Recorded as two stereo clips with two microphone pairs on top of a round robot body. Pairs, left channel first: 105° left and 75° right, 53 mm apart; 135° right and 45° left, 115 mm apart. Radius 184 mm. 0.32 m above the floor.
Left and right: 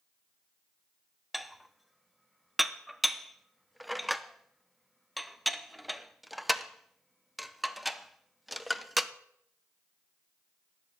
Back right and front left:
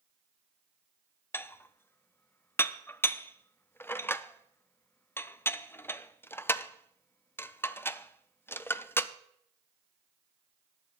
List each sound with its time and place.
1.3 s dishes clattering: 170° right, 0.7 m